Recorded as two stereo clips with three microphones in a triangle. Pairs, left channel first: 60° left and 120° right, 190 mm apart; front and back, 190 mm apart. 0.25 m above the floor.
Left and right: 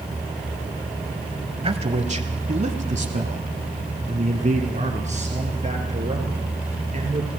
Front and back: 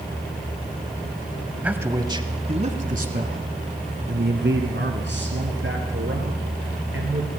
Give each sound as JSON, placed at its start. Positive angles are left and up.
{"t": 1.6, "sound": "a man speaking", "azimuth_deg": -105, "distance_m": 1.1}